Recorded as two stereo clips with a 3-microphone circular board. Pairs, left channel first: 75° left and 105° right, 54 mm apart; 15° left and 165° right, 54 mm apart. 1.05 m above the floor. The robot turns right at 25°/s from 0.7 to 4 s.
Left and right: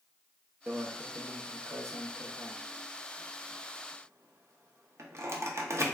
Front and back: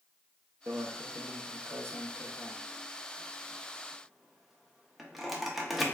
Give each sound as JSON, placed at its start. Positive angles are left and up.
{"t": 0.7, "sound": "a microwave", "azimuth_deg": -155, "distance_m": 0.6}